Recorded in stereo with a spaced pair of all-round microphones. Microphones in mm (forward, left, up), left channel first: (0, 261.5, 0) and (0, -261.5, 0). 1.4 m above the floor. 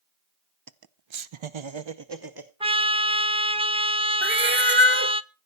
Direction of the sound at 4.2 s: 20° right (ahead or behind).